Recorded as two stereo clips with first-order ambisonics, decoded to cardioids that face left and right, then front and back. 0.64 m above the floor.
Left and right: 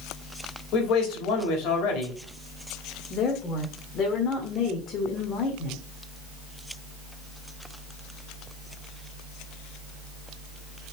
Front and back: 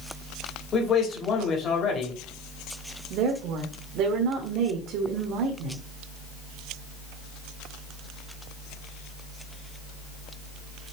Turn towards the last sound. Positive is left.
turn(degrees=145)